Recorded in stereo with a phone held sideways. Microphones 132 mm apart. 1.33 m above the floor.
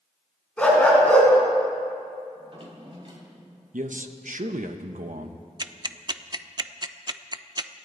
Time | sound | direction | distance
0.6 | a dog barking | 10° left (ahead or behind) | 4 m
2.4 | a drawer | 40° right (ahead or behind) | 3 m
3.7 | a man speaking | 75° right (ahead or behind) | 1.0 m
5.6 | ticking | 35° right (ahead or behind) | 0.5 m